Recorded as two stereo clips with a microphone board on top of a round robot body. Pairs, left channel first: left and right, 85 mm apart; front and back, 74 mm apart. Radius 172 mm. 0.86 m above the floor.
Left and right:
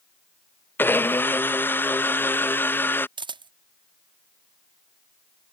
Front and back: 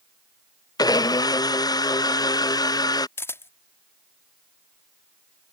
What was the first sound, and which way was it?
A blender, 25° left.